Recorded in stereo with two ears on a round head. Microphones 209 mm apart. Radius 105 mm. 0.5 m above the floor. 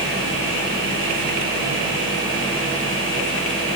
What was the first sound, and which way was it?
Only background noise.